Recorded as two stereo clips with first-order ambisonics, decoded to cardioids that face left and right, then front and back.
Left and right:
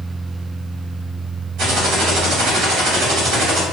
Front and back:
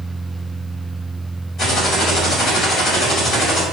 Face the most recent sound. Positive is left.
turn(degrees=-65)